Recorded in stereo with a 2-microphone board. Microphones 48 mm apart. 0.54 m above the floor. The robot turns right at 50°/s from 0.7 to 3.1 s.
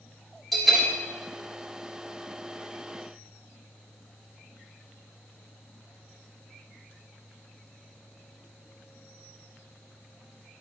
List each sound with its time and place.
0.5 s a bell: centre (ahead or behind), 1.8 m; by 0.9 s 10° left (ahead or behind), 1.8 m